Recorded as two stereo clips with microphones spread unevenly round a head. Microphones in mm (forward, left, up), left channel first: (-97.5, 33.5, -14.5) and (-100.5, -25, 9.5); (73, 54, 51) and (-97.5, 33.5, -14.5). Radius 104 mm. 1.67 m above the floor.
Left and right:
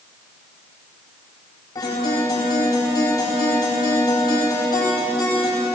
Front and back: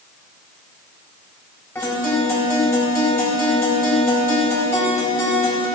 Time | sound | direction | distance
1.8 | a guitar | 80° left | 9.5 m